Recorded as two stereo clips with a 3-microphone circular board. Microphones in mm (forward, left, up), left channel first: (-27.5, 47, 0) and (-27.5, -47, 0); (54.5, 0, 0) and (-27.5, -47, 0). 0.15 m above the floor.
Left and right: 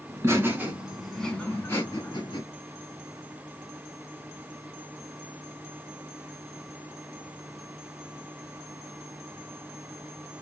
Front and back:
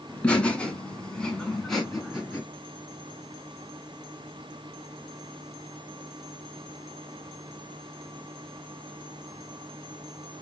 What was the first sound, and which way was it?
Laughter, 45° right.